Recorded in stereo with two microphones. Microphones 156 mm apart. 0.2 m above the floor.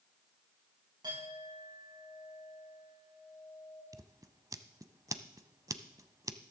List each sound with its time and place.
1.0 s a clink: 30° right (ahead or behind), 8 m
3.9 s scissors: 20° right (ahead or behind), 0.7 m